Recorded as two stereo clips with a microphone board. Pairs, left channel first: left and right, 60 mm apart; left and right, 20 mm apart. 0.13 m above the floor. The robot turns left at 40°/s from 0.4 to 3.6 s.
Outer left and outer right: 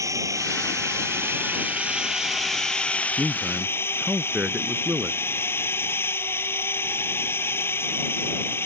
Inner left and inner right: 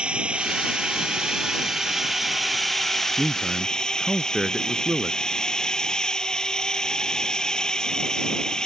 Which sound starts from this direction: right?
A drone, at 0.0 s.